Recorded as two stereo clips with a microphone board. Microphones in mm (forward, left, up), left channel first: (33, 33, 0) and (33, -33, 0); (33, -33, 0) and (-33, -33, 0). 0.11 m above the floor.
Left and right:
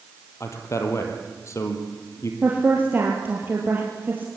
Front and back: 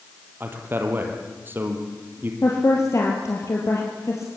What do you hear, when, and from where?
0.4 s a man speaking: 125° left, 3.5 m
2.4 s a woman speaking: 35° right, 3 m